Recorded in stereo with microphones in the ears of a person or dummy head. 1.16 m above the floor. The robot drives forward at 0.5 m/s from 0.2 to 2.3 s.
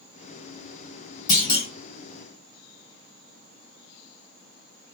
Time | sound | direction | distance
1.3 | a clunk | 25° left (ahead or behind) | 1.2 m